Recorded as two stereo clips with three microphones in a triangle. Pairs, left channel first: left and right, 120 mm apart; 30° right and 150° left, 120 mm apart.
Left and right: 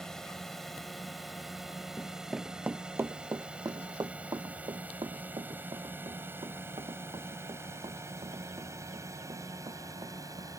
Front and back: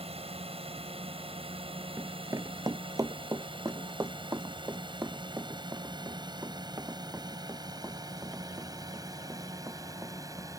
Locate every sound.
0.0 s a drone: 175° left; by 10.6 s 150° right
2.0 s running footsteps: 120° left; by 10.5 s 140° right